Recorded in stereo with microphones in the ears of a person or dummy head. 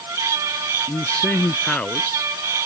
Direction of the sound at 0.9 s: 5° left (ahead or behind).